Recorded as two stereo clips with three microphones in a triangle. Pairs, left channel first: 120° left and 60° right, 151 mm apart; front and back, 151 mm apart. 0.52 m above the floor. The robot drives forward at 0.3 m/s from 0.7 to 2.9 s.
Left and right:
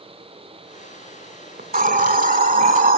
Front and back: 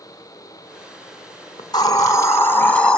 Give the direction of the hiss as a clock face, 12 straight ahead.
2 o'clock.